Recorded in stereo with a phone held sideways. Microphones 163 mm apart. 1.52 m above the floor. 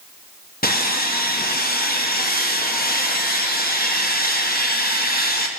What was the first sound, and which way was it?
Sawing, 65° left (ahead or behind).